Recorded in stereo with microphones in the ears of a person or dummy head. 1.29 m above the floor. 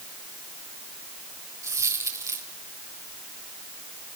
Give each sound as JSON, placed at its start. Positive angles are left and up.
{"t": 1.6, "sound": "a dropped coin", "side_deg": -10, "distance_m": 2.5}